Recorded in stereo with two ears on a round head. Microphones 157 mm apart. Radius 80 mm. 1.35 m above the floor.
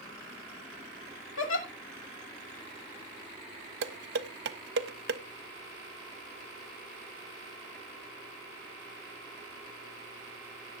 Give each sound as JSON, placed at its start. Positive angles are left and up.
{"t": 1.4, "sound": "a giggle", "side_deg": 80, "distance_m": 2.5}
{"t": 3.8, "sound": "dishes clattering", "side_deg": -60, "distance_m": 1.0}